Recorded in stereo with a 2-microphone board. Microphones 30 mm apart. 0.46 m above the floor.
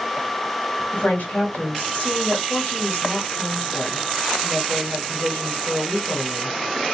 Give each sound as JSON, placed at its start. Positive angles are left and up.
{"t": 0.9, "sound": "a woman speaking", "side_deg": 65, "distance_m": 2.5}